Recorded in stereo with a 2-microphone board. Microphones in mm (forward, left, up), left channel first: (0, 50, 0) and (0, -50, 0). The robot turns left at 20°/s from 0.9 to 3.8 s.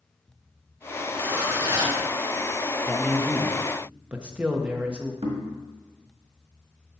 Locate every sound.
1.1 s a zipper: 15° right (ahead or behind), 2.5 m; by 2.0 s 35° right (ahead or behind), 2.5 m
2.9 s a man speaking: 10° left (ahead or behind), 0.9 m; by 5.1 s 10° right (ahead or behind), 0.9 m
5.2 s knocking: 70° right (ahead or behind), 1.5 m